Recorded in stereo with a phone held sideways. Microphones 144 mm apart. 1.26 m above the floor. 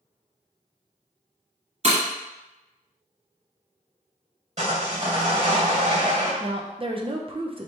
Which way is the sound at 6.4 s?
40° right (ahead or behind).